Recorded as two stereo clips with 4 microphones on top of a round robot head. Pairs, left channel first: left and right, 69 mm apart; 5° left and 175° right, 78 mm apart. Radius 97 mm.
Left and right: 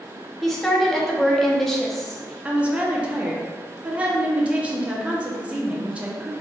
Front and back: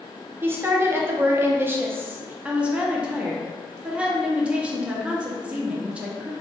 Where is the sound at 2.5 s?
125° right, 0.7 m.